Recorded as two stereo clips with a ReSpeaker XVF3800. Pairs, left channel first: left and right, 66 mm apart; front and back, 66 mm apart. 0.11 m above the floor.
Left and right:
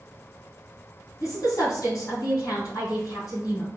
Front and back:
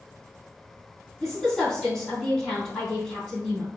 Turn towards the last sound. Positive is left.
turn(degrees=80)